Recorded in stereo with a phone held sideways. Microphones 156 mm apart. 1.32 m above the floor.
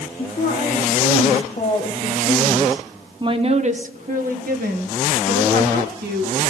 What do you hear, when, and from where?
0.2 s a woman speaking: 60° left (ahead or behind), 1.8 m; by 6.4 s 85° right, 2.5 m